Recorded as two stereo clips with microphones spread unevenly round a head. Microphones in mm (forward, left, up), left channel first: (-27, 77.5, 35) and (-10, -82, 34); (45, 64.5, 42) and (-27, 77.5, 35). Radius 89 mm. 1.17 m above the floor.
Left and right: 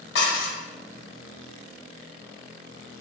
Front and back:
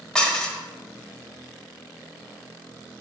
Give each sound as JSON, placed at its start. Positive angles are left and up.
{"t": 0.1, "sound": "dishes clattering", "azimuth_deg": 65, "distance_m": 0.8}